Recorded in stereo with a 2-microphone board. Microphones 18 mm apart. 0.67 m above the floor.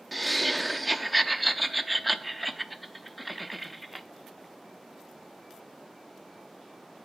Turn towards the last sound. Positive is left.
turn(degrees=5)  # may be behind; listen again after turning